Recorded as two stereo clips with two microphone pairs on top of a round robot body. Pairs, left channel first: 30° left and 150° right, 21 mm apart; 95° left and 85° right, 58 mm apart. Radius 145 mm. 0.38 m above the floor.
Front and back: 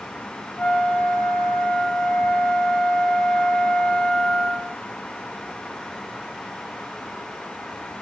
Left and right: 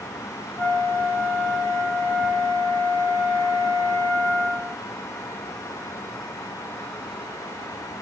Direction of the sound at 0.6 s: 5° left.